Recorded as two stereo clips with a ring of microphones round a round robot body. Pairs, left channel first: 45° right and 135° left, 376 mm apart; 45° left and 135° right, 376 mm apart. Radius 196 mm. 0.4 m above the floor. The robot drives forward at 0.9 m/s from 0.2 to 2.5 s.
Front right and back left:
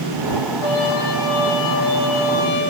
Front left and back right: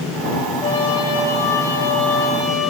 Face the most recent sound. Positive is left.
turn(degrees=-45)